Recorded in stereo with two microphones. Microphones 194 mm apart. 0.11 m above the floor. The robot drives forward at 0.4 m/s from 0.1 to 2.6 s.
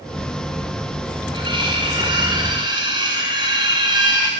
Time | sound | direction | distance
1.3 | cutlery clinking | 25° right (ahead or behind) | 6.5 m